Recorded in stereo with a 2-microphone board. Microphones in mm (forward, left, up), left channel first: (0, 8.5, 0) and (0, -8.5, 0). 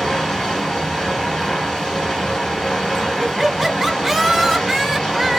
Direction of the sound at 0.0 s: 70° left (ahead or behind).